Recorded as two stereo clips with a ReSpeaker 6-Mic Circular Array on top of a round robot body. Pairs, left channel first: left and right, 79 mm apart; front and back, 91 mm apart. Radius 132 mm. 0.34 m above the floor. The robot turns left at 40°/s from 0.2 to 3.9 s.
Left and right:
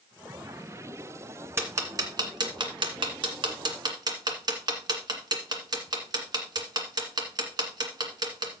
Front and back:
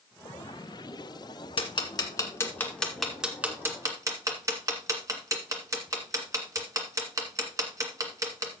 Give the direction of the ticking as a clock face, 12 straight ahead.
1 o'clock.